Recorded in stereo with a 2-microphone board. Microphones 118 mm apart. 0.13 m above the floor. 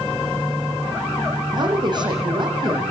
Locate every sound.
1.5 s a woman speaking: 40° right (ahead or behind), 7 m